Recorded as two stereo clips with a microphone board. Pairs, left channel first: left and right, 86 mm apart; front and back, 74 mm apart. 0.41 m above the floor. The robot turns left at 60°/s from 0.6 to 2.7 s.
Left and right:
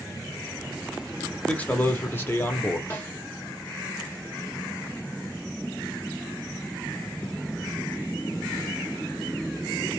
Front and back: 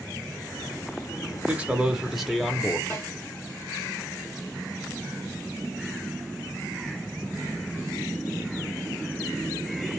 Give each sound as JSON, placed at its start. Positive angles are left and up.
{"t": 1.5, "sound": "a man speaking", "azimuth_deg": 140, "distance_m": 0.8}
{"t": 2.9, "sound": "a snare drum", "azimuth_deg": 35, "distance_m": 1.6}